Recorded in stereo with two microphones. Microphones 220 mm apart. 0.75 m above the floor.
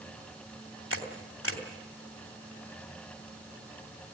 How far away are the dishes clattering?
No dishes clattering in this recording.